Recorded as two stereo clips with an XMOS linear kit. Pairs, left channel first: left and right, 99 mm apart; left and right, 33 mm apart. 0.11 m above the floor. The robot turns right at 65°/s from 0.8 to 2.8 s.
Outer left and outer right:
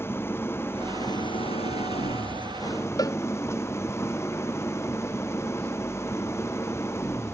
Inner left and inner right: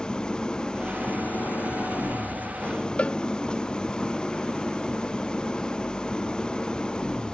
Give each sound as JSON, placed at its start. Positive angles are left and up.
{"t": 0.0, "sound": "an engine running", "azimuth_deg": 25}
{"t": 3.0, "sound": "a cowbell", "side_deg": 40}